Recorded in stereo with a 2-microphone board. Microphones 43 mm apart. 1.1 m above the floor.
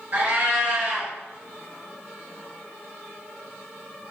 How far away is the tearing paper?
No tearing paper in this recording.